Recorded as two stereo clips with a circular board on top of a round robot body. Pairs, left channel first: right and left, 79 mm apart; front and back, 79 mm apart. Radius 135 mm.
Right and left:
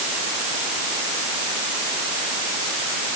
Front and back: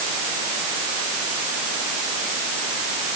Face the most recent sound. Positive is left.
No sound to turn to.